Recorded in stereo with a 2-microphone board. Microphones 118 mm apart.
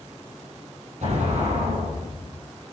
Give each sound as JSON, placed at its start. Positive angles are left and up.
{"t": 1.0, "sound": "an explosion", "side_deg": -75, "distance_m": 5.0}